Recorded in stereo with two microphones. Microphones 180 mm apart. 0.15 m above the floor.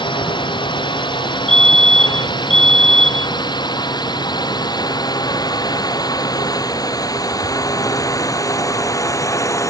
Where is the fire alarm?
40° left (ahead or behind).